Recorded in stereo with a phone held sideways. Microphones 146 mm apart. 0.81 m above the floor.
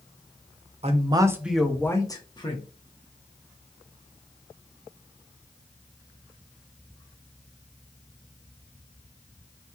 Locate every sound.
0.8 s a man speaking: 45° right (ahead or behind), 0.7 m; by 2.6 s 35° left (ahead or behind), 1.2 m